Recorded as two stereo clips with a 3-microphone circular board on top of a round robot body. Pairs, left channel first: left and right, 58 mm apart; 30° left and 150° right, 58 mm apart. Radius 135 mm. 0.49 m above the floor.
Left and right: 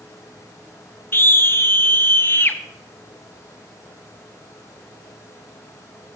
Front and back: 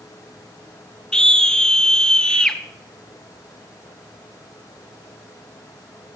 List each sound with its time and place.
1.1 s a scream: 100° left, 1.5 m